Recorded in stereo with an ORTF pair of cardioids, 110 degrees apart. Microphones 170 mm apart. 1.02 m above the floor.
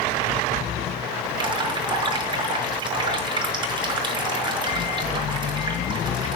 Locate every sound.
1.4 s dripping: 25° right, 5.5 m